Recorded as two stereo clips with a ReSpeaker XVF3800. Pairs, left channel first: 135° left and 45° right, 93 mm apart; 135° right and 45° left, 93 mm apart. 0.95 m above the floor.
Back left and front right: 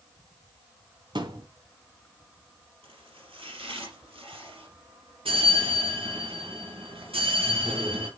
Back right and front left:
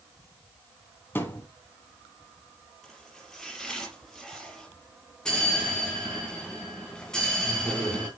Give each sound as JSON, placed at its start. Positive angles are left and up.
{"t": 1.1, "sound": "a thud", "azimuth_deg": -70, "distance_m": 1.6}
{"t": 2.8, "sound": "chopping", "azimuth_deg": -50, "distance_m": 4.5}
{"t": 5.2, "sound": "a bell", "azimuth_deg": -55, "distance_m": 3.0}